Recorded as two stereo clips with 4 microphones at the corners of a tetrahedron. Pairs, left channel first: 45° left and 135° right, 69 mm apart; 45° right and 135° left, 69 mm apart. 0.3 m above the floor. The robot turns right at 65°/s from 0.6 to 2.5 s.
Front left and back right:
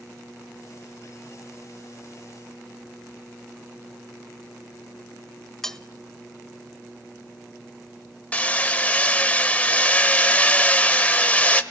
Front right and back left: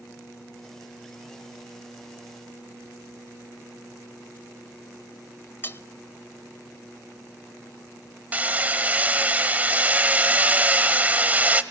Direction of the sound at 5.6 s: 30° right.